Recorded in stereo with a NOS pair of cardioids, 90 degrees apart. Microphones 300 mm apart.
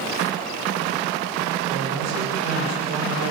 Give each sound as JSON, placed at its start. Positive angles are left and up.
{"t": 1.7, "sound": "a man speaking", "azimuth_deg": -70, "distance_m": 7.5}